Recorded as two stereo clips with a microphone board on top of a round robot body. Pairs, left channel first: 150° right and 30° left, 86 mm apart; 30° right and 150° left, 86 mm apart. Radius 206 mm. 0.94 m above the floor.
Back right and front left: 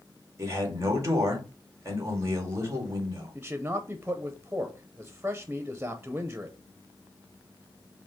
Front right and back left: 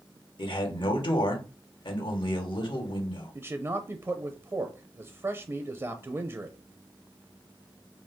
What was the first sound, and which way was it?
A man speaking, 25° right.